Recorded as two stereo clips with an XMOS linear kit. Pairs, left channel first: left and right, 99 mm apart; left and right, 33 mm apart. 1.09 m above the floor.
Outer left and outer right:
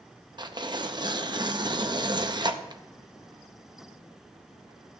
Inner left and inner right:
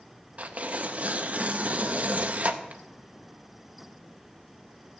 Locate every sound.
0.4 s tearing paper: 50° right (ahead or behind), 0.6 m